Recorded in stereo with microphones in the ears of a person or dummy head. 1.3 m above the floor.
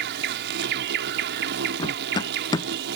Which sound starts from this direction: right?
An insect, at 0.0 s.